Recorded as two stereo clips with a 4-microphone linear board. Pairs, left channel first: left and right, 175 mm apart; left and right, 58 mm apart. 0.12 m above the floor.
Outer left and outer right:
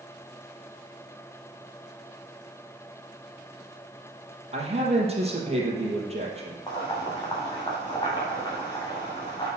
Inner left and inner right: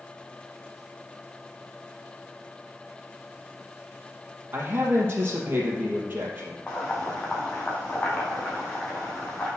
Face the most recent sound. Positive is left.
turn(degrees=25)  # may be behind; listen again after turning